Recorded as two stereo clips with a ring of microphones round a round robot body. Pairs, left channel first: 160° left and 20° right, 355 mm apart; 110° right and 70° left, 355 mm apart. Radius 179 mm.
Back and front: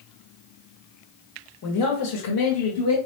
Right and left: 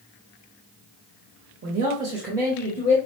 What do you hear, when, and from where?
1.6 s a man speaking: 120° left, 1.2 m; by 3.0 s 175° right, 1.6 m